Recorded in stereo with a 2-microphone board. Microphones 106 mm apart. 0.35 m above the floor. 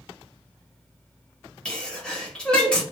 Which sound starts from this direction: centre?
A sneeze, at 1.6 s.